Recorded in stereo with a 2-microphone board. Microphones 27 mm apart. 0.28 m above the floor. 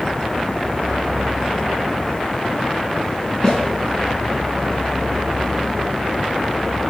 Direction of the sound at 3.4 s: 25° left (ahead or behind).